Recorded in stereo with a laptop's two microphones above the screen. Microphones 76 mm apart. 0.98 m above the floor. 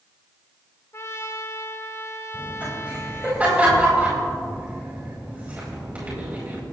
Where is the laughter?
20° right (ahead or behind), 5 m.